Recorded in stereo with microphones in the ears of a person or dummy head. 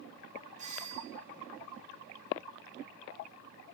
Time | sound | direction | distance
0.6 | a doorbell | 40° right (ahead or behind) | 1.6 m